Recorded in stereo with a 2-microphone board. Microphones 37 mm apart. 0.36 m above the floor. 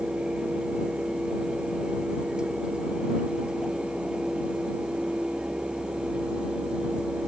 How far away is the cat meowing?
No cat meowing in this recording.